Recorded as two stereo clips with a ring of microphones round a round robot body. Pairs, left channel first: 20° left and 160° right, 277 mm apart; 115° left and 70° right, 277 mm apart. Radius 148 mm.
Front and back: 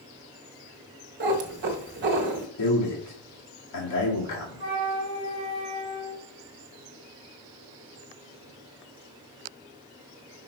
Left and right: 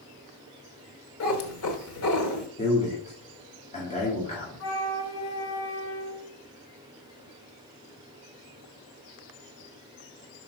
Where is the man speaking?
45° left, 2 m.